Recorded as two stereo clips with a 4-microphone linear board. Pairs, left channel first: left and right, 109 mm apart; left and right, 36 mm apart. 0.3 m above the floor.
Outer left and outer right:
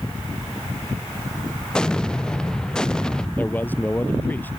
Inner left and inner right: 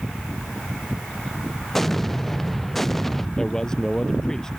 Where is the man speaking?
15° left (ahead or behind).